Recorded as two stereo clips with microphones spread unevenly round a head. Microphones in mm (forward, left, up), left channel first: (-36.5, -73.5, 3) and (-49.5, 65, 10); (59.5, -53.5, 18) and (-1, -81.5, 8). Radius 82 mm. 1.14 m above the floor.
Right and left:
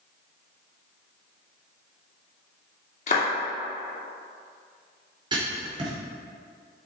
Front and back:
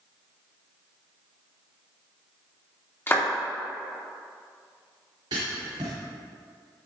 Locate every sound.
3.1 s a clap: 35° right, 2.5 m
5.3 s writing: 150° left, 3.5 m